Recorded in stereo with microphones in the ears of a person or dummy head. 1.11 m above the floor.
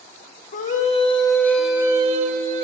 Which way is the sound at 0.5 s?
40° left (ahead or behind).